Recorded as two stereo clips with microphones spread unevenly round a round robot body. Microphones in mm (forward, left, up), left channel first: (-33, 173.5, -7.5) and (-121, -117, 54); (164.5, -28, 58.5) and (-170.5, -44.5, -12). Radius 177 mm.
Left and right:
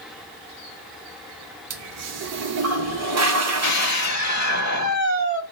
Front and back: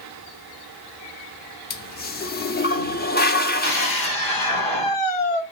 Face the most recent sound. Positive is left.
turn(degrees=30)